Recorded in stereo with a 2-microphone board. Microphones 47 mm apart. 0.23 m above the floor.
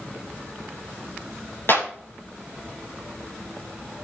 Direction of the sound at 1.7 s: 55° left (ahead or behind).